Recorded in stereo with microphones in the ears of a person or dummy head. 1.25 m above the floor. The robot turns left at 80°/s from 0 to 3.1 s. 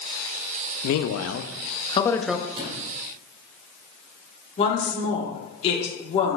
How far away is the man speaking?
About 0.5 m.